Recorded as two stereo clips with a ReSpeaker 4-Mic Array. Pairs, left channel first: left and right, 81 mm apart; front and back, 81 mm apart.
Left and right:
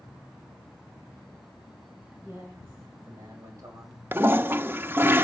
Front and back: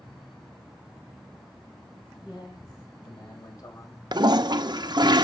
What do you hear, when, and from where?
2.2 s a man speaking: 35° right, 6 m; by 5.1 s 65° right, 3.5 m
4.1 s a toilet flushing: 155° right, 0.6 m